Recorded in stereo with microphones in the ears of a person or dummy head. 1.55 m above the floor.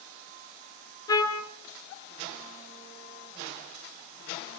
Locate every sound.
1.1 s a trumpet: 15° left (ahead or behind), 1.8 m